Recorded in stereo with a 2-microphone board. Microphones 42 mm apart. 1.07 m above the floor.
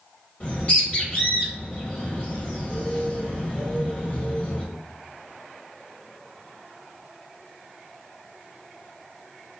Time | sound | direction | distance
0.4 | a bird | 25° left (ahead or behind) | 1.0 m